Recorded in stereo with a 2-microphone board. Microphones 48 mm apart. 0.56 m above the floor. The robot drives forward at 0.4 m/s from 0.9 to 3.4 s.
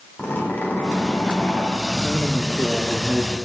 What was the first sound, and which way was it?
A zipper, 30° left (ahead or behind).